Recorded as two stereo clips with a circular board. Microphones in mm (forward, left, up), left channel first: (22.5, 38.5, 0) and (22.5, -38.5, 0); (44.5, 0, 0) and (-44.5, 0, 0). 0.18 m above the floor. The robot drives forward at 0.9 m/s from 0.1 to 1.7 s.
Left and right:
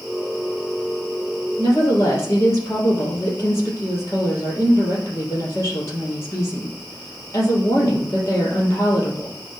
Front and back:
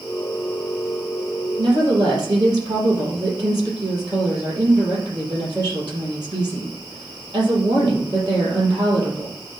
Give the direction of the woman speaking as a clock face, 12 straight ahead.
7 o'clock.